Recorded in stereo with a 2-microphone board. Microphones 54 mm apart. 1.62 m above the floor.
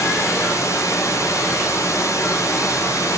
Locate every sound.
0.0 s running water: 80° left, 4.5 m